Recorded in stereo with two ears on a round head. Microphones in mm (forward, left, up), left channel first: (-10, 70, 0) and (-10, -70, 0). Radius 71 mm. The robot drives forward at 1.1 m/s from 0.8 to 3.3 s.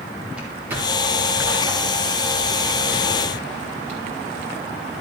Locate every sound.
0.3 s footsteps: 10° right (ahead or behind), 3.5 m; by 4.2 s 45° right (ahead or behind), 5.5 m